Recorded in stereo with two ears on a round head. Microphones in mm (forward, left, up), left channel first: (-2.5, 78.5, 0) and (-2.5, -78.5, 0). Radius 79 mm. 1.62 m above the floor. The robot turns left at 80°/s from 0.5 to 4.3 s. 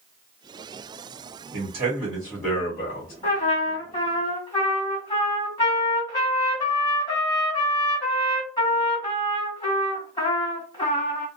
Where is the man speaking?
125° right, 1.2 m; by 3.1 s 110° left, 1.2 m.